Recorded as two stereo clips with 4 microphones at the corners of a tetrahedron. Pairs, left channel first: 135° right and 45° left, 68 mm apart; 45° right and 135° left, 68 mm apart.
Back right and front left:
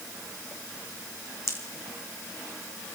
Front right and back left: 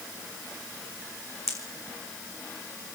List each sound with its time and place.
1.5 s a pop: 85° right, 2.5 m